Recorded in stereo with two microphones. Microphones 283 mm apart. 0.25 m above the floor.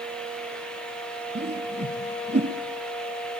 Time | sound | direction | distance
1.4 | a whoosh | 35° right (ahead or behind) | 2.5 m